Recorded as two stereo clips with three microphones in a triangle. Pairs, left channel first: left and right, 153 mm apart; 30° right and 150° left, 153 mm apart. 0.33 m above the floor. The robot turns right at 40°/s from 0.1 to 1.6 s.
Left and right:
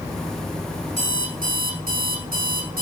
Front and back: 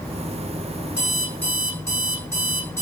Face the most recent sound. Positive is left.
turn(degrees=-100)